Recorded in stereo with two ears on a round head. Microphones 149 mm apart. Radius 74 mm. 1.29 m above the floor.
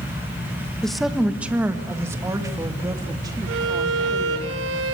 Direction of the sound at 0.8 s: 5° left (ahead or behind).